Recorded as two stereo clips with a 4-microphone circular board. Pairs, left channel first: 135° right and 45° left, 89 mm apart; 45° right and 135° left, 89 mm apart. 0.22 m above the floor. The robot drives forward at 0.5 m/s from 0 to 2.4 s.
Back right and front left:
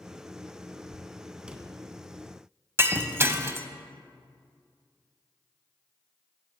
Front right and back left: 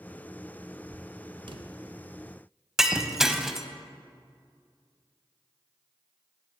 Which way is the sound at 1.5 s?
120° left.